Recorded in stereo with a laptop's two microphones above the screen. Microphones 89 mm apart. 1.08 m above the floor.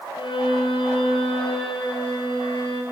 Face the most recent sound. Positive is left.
turn(degrees=70)  # may be behind; listen again after turning